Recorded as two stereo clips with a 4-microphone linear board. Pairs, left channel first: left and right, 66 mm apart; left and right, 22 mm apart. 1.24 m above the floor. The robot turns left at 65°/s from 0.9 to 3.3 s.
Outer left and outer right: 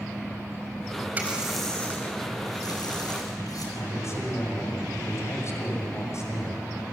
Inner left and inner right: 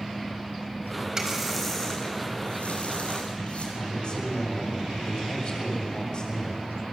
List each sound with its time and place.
1.2 s a running tap: 155° right, 5.5 m; by 3.6 s 65° left, 5.5 m
3.8 s a man speaking: 45° left (ahead or behind), 6.5 m